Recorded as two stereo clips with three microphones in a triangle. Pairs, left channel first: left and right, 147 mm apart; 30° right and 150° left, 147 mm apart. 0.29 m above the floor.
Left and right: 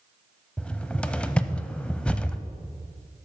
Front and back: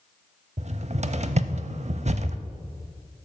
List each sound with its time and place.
0.6 s a cupboard door: 170° left, 0.6 m